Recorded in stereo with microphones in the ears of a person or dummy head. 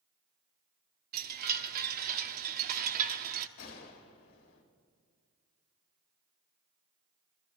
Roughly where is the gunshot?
Left.